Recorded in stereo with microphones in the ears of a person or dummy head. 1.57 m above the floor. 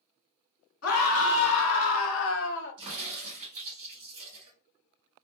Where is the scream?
85° left, 1.5 m; by 2.8 s 60° left (ahead or behind), 0.7 m.